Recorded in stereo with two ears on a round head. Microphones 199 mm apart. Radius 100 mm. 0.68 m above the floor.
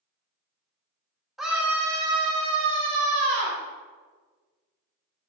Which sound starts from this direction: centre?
A scream, at 1.4 s.